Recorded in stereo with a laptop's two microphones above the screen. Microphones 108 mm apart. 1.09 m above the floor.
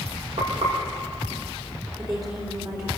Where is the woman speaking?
40° right (ahead or behind), 3 m.